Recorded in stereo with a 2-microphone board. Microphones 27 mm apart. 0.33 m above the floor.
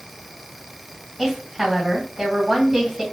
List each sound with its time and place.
1.2 s a woman speaking: 10° right (ahead or behind), 2.0 m